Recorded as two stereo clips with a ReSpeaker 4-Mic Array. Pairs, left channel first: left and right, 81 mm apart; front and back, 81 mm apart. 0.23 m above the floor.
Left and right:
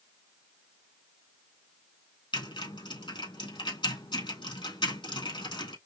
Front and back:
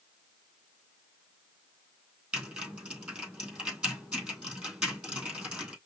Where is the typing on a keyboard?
100° left, 2.5 m.